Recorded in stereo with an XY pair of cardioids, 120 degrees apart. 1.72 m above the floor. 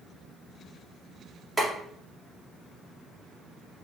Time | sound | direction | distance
1.6 | boiling | 15° right | 2.0 m